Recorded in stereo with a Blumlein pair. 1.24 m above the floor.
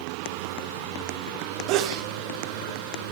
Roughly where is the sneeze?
Ahead right.